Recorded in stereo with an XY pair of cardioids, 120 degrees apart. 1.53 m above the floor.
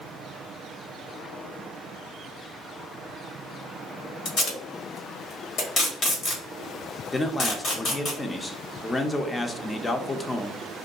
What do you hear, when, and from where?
4.2 s tape being pulled: 55° left, 1.4 m
7.1 s a man speaking: 25° left, 0.5 m